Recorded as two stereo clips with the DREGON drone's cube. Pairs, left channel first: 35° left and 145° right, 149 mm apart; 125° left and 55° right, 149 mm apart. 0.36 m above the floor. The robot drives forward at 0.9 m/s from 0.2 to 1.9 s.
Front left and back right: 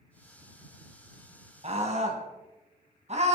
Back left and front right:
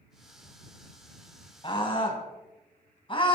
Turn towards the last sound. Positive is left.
turn(degrees=175)